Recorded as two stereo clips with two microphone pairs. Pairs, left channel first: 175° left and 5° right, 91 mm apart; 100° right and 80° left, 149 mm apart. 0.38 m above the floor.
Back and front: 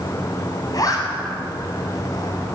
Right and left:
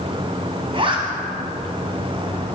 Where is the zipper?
130° left, 1.9 m.